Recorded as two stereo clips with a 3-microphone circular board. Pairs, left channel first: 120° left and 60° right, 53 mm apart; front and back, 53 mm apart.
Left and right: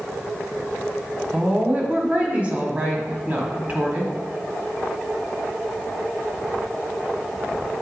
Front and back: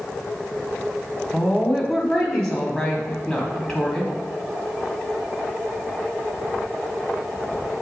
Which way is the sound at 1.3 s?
65° right.